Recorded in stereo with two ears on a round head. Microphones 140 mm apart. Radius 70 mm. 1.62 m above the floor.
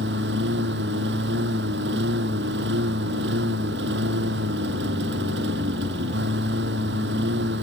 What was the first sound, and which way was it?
A lawn mower, 80° right.